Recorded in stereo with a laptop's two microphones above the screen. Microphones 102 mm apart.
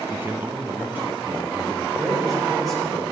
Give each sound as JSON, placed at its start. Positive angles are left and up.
{"t": 0.1, "sound": "a man speaking", "side_deg": -25, "distance_m": 0.6}
{"t": 2.0, "sound": "a man speaking", "side_deg": 0, "distance_m": 3.0}